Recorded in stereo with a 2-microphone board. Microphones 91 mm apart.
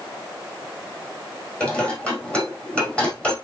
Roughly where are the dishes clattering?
Centre.